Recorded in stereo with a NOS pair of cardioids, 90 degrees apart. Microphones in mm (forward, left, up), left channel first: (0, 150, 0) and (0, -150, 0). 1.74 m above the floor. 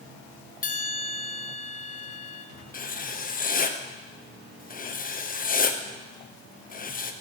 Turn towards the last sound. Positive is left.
turn(degrees=30)